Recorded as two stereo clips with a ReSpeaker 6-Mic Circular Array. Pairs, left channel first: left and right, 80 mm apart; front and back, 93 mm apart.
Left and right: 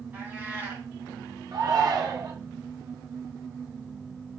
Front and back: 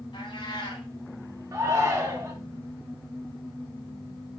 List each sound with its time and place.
0.1 s a cat meowing: 25° right, 2.5 m
1.5 s a shout: 125° right, 2 m